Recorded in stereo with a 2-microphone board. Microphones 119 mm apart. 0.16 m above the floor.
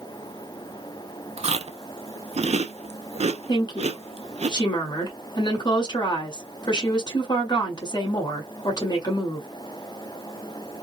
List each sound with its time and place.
1.4 s chewing: 60° right (ahead or behind), 0.5 m
3.5 s a woman speaking: 35° left (ahead or behind), 1.8 m